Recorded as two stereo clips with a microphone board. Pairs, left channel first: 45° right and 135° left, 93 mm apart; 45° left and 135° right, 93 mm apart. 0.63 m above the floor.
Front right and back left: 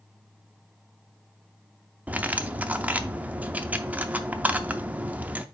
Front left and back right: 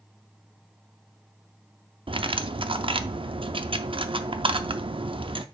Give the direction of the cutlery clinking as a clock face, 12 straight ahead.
5 o'clock.